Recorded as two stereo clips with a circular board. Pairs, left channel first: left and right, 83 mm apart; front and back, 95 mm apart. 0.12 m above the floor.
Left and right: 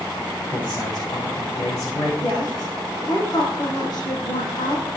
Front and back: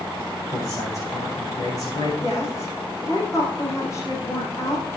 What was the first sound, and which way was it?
A man speaking, 55° left.